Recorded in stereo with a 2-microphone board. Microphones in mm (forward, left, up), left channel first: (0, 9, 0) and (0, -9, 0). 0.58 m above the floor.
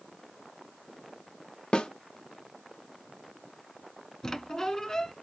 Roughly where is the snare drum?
Left.